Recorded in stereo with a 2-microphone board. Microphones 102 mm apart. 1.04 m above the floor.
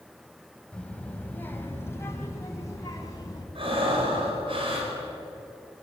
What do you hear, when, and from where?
0.7 s a child speaking: 10° left (ahead or behind), 3.5 m; by 3.5 s 35° left (ahead or behind), 5 m
3.5 s breathing: 60° right (ahead or behind), 5.5 m